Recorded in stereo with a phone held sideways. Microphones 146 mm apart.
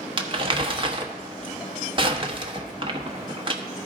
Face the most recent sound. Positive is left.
turn(degrees=-35)  # may be behind; listen again after turning